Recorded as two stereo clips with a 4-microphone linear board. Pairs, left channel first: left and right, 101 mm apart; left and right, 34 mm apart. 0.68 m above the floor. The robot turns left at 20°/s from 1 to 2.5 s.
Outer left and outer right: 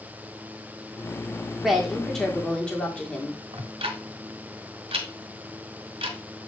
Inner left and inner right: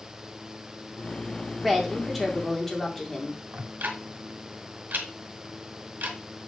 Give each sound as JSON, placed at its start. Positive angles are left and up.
{"t": 1.6, "sound": "a woman speaking", "side_deg": -5, "distance_m": 1.8}
{"t": 3.5, "sound": "ticking", "side_deg": -75, "distance_m": 1.2}